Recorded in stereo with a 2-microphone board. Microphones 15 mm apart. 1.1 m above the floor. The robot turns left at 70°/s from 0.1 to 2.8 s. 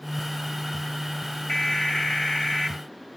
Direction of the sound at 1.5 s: 140° left.